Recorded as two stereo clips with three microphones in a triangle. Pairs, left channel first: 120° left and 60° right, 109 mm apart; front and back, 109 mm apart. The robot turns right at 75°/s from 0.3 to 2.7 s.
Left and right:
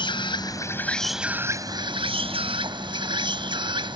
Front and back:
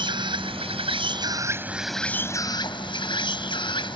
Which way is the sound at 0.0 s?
150° left.